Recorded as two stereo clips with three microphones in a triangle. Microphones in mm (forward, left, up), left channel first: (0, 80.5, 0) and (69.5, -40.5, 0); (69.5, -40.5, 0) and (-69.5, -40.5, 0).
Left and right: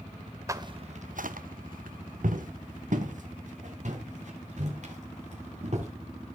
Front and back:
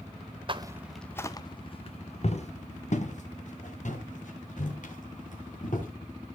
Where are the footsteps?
125° right, 0.7 m; by 5.9 s 25° right, 5 m.